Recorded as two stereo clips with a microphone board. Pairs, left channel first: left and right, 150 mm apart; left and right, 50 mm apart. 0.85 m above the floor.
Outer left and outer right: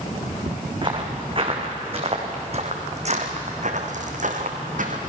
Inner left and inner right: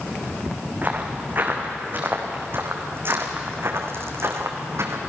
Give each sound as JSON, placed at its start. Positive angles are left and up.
{"t": 0.8, "sound": "footsteps", "side_deg": -35, "distance_m": 4.0}